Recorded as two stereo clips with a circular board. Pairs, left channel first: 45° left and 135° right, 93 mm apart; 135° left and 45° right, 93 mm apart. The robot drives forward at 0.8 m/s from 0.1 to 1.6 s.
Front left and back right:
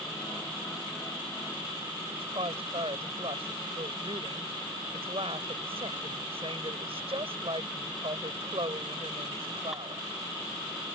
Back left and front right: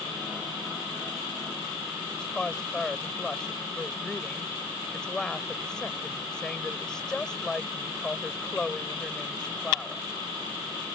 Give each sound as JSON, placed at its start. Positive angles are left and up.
{"t": 2.1, "sound": "a woman speaking", "azimuth_deg": -145}